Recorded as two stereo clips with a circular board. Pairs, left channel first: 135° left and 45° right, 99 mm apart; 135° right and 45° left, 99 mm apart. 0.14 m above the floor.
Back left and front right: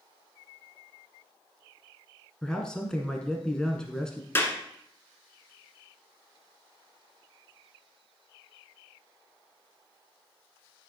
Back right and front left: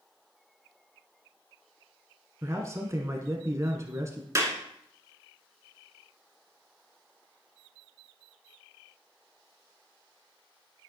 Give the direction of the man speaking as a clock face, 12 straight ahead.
10 o'clock.